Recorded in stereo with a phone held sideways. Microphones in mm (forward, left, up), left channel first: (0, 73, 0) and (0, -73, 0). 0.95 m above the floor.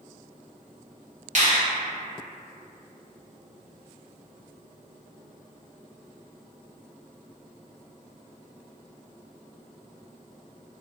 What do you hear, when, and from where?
1.4 s a finger snap: 55° right (ahead or behind), 1.3 m